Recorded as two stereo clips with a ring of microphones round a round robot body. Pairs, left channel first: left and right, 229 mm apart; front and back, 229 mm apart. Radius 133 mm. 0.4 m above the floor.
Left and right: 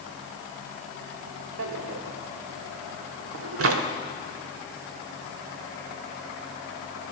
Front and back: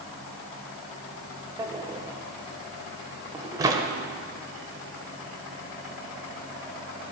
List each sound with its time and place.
1.6 s a drawer: 105° right, 0.8 m